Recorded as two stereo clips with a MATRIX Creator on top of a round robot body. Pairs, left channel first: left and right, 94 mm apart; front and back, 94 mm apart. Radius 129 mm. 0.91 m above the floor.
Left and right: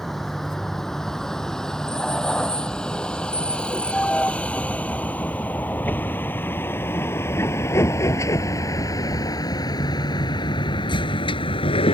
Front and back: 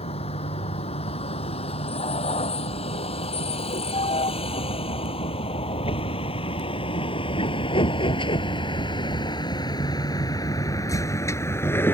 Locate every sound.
0.0 s a vehicle: 5° left; by 11.9 s 65° left